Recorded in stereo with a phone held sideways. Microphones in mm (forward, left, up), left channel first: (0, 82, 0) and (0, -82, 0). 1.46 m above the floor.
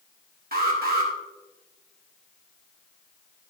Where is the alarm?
65° right (ahead or behind), 2 m.